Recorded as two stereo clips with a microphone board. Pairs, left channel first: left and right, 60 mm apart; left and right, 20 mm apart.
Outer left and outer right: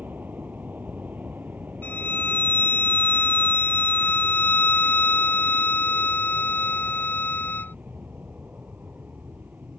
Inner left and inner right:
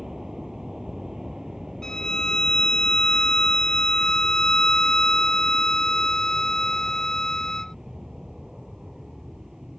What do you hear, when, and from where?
0.0 s an aircraft: 30° right (ahead or behind)
1.8 s a violin: 30° left (ahead or behind)